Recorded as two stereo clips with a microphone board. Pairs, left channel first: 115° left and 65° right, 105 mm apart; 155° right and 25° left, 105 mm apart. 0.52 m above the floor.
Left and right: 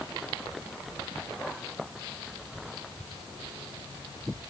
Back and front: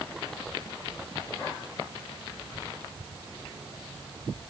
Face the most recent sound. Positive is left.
No sound to turn to.